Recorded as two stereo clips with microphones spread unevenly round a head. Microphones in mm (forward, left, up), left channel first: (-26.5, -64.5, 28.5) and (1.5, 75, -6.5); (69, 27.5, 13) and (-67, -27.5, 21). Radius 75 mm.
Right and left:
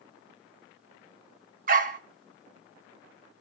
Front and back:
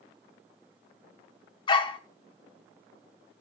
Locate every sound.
1.7 s a dog barking: 70° left, 0.6 m